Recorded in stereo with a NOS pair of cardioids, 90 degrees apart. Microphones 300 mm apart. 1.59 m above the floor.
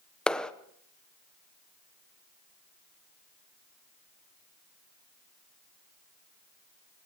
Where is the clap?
5° left, 0.9 m.